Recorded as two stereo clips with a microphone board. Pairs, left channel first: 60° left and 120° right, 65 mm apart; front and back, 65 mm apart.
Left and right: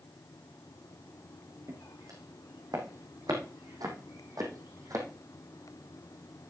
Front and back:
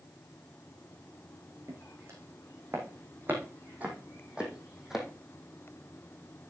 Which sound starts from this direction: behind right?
Footsteps, at 1.7 s.